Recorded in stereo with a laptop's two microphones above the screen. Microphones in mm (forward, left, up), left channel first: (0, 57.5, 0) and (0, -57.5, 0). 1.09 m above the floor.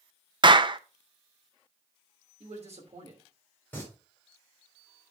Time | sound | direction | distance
0.4 | a clap | 45° right (ahead or behind) | 0.6 m
2.4 | a man speaking | 65° right (ahead or behind) | 3 m
3.7 | singing | 15° left (ahead or behind) | 3.5 m